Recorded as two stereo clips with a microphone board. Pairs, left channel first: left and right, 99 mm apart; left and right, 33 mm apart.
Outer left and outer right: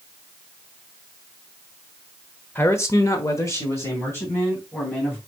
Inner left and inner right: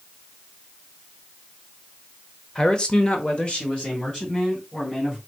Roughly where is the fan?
I don't hear a fan.